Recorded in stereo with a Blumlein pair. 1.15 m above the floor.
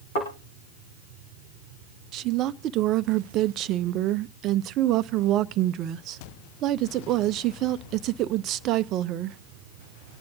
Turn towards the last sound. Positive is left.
turn(degrees=-35)